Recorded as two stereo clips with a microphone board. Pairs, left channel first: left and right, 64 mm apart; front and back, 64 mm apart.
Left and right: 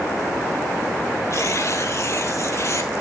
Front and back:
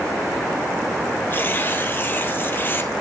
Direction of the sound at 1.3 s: 55° left.